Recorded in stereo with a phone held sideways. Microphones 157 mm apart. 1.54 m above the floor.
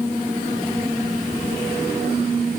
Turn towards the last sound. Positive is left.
No sound to turn to.